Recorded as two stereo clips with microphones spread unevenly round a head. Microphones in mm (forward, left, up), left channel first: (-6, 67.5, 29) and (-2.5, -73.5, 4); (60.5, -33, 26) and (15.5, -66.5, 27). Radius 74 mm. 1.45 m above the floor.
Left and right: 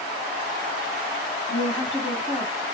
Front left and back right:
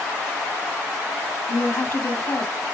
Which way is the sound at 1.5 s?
10° right.